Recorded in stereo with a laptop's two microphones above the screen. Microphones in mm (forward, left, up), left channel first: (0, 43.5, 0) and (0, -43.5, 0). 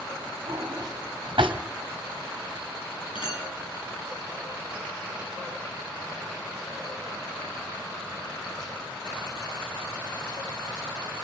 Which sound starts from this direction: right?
A drawer, at 0.5 s.